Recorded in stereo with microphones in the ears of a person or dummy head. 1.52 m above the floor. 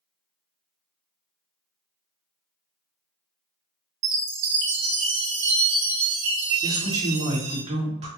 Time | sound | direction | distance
4.0 | a chime | 60° right (ahead or behind) | 0.8 m
6.6 | a man speaking | 30° right (ahead or behind) | 1.6 m